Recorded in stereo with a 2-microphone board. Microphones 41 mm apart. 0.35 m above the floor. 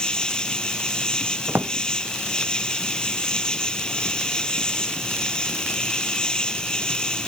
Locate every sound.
0.0 s an insect: 20° left (ahead or behind)
1.5 s a drawer: 70° right (ahead or behind)